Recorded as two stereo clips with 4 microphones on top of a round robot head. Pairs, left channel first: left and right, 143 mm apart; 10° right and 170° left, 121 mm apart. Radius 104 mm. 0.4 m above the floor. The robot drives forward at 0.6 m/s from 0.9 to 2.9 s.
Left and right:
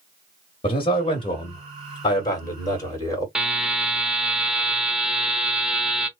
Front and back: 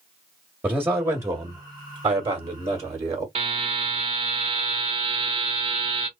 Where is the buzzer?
175° right, 0.9 m.